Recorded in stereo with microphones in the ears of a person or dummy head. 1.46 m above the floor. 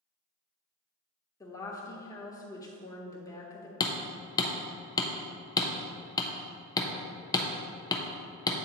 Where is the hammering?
25° left (ahead or behind), 0.6 m.